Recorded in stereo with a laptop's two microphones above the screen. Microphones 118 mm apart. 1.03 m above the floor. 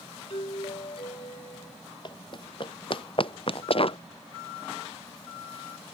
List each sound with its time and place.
0.3 s a doorbell: 55° left (ahead or behind)
2.0 s running footsteps: 40° left (ahead or behind); by 4.0 s 50° left (ahead or behind)